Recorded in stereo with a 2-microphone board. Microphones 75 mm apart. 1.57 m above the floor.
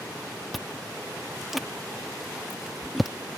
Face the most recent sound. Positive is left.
turn(degrees=0)  # may be behind; listen again after turning